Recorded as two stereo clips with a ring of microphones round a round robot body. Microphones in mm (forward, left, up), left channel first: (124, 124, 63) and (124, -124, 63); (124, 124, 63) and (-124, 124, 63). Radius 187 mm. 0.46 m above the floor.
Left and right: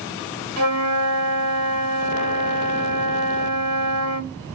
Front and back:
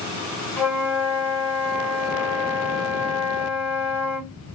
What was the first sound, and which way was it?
A flute, 80° right.